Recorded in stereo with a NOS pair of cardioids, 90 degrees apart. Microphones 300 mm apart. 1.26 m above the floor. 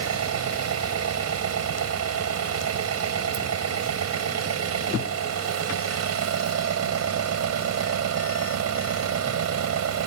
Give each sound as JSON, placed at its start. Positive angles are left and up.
{"t": 0.0, "sound": "an engine running", "azimuth_deg": -50}